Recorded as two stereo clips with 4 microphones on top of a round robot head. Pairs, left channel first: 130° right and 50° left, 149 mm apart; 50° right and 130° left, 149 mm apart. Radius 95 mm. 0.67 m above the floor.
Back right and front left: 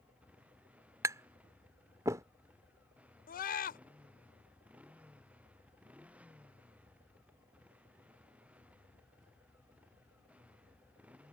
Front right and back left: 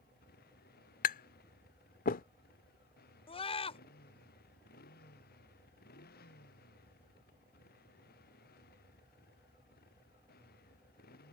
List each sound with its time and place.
0.0 s a motorcycle: 30° right
1.0 s tapping: 20° right
3.3 s a scream: 105° right